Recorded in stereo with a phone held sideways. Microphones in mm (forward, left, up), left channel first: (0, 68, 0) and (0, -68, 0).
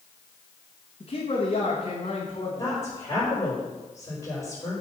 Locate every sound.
1.0 s a man speaking: 45° left (ahead or behind), 1.6 m
2.6 s a woman speaking: 20° left (ahead or behind), 4 m